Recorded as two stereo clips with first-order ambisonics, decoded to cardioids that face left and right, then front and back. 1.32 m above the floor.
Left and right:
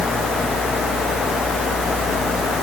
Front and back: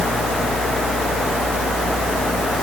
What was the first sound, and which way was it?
Only background noise.